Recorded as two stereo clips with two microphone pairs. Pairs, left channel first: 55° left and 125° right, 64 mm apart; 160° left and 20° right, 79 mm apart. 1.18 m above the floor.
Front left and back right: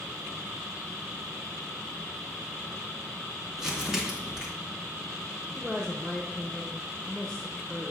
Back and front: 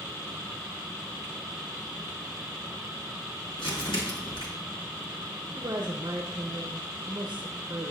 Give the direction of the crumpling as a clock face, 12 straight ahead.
7 o'clock.